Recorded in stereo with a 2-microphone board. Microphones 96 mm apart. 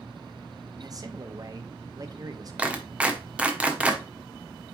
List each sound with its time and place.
0.8 s a man speaking: 40° right (ahead or behind), 0.9 m
2.6 s a clap: 15° right (ahead or behind), 1.1 m